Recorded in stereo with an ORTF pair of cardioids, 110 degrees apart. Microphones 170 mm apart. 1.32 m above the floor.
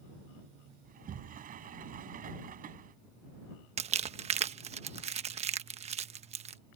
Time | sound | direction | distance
0.8 | a sliding door | 55° right | ?
3.8 | crumpling | 40° right | ?